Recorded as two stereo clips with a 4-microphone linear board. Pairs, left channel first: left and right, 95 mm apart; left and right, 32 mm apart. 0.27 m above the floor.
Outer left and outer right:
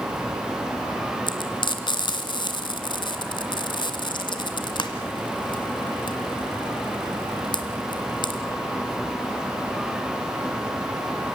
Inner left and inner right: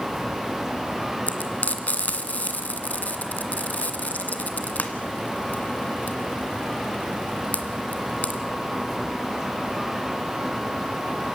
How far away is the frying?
About 1.9 m.